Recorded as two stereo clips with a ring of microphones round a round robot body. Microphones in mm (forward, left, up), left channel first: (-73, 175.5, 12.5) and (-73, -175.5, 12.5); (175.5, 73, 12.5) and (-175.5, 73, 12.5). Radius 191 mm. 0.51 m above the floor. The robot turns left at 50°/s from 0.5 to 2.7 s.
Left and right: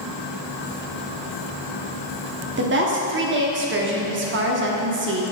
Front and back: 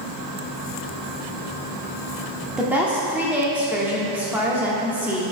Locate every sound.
2.6 s a woman speaking: 90° right, 0.8 m; by 5.3 s 100° right, 0.8 m